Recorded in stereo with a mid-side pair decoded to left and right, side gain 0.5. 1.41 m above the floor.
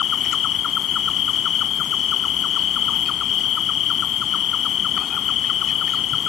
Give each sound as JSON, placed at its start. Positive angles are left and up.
{"t": 0.0, "sound": "an insect", "azimuth_deg": 60}